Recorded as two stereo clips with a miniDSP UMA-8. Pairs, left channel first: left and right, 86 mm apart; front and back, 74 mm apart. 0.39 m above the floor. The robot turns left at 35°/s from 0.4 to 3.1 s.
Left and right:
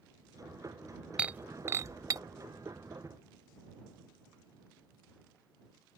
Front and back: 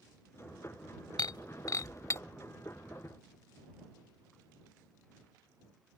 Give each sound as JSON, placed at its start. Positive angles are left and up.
{"t": 1.2, "sound": "breaking glass", "azimuth_deg": -15}